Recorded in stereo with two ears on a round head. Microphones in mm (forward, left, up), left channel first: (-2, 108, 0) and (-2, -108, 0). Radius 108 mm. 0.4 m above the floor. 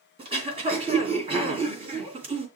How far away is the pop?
I don't hear a pop.